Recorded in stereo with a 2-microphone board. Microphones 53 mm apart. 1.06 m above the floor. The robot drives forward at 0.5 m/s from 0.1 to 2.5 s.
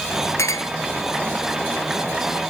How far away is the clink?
About 1.2 m.